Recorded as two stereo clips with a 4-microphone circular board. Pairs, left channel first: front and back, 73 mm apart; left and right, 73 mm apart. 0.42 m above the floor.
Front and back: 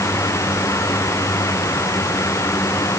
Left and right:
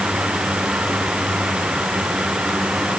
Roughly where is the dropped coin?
I don't hear a dropped coin.